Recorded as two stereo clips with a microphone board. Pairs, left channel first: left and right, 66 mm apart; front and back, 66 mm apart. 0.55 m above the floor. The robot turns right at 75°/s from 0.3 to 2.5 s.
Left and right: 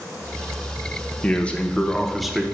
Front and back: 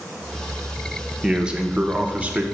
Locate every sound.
1.2 s a man speaking: 110° left, 0.6 m; by 2.4 s 160° right, 0.6 m